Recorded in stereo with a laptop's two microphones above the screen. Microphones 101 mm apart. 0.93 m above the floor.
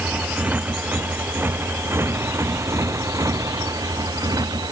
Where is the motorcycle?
10° right (ahead or behind); by 4.7 s 40° right (ahead or behind).